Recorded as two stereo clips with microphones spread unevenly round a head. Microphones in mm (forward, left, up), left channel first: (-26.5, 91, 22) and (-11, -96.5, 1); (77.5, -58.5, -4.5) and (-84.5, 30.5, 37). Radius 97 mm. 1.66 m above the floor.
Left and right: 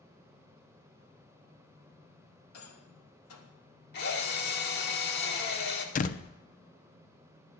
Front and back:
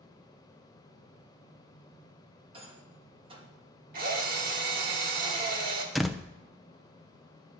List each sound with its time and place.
2.5 s a rattle: 85° left, 2.5 m
3.9 s a drill: 120° left, 2 m
6.0 s a door slam: 75° left, 0.7 m